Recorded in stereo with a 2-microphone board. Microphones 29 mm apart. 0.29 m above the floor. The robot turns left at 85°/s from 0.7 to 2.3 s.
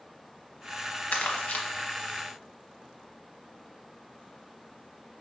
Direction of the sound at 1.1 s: 55° left (ahead or behind).